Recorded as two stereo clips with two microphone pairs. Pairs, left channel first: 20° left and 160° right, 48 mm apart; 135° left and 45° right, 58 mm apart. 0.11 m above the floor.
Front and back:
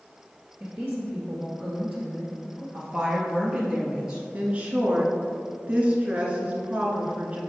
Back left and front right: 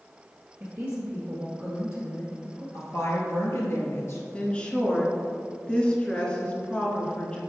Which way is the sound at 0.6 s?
95° right.